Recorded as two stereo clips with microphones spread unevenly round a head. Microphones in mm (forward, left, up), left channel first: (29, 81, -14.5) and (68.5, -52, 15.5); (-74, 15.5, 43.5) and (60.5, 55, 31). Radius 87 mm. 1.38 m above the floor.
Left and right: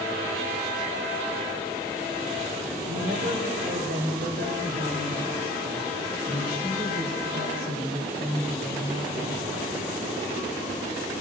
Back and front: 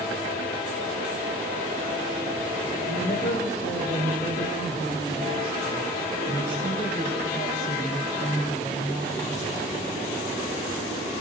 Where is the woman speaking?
115° right, 6 m; by 9.7 s 90° right, 9 m.